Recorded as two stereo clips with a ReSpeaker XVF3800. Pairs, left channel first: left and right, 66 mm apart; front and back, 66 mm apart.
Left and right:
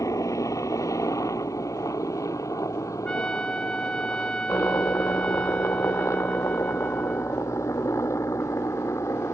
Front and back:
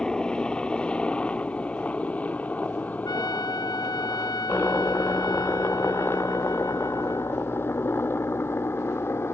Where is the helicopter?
75° left; by 9.3 s 50° left.